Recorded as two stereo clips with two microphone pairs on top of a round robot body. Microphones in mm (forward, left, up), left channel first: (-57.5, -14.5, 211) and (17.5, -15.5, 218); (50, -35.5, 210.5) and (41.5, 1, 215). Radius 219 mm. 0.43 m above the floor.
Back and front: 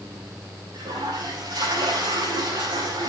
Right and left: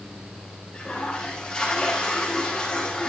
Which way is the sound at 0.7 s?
10° right.